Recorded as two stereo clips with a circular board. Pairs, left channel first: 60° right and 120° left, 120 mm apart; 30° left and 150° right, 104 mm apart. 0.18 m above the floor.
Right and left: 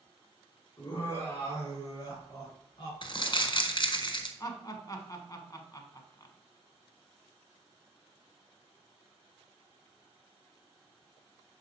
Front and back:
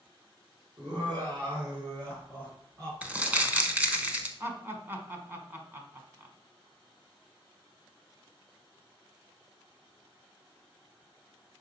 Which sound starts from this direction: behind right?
Laughter, at 0.8 s.